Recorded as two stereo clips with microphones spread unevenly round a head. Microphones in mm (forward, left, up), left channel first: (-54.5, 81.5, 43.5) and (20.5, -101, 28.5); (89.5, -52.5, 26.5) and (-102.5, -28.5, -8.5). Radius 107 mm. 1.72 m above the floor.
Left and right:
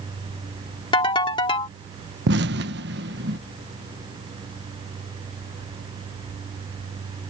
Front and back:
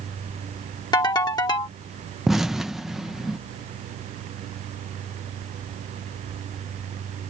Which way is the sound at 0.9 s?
50° left.